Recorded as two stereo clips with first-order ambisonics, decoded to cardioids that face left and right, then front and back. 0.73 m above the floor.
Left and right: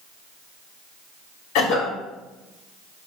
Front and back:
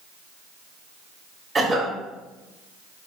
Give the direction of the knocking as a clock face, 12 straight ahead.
I don't hear knocking.